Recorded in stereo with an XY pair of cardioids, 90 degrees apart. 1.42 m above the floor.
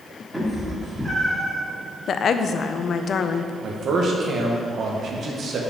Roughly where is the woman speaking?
Ahead left.